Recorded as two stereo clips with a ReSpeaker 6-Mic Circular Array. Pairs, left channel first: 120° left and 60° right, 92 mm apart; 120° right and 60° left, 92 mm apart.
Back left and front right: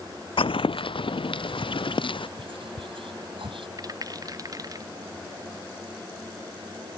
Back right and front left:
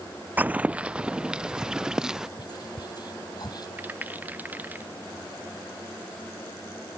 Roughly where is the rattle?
Ahead.